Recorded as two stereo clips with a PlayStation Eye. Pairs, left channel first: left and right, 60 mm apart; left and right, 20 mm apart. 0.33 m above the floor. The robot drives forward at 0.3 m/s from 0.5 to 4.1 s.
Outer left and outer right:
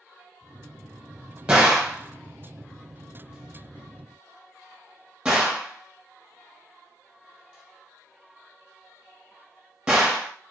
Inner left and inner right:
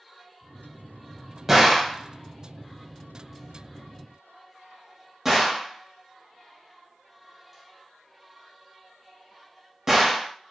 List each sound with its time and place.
1.5 s a gunshot: 15° right (ahead or behind), 1.3 m